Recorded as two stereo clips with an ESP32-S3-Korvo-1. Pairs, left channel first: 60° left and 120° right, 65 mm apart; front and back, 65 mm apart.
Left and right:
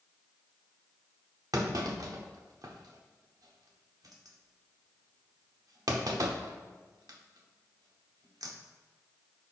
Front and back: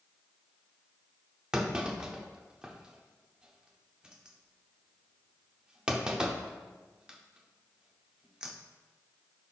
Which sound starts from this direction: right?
A clunk, at 1.5 s.